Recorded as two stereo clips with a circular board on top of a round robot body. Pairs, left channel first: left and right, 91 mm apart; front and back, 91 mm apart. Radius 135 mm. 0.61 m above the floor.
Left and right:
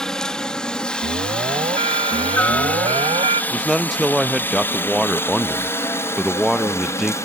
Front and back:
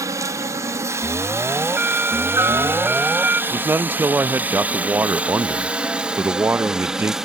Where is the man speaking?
Straight behind.